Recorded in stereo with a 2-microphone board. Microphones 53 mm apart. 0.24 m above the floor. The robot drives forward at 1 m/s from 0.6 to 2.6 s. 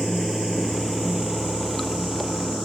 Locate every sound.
0.0 s running water: centre (ahead or behind)